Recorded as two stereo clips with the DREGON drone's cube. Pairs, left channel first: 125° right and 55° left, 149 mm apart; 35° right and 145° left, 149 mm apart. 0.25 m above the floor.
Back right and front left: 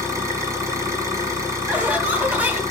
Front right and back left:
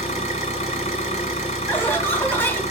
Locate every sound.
0.0 s an engine running: 10° right, 1.7 m
1.7 s laughter: 5° left, 1.0 m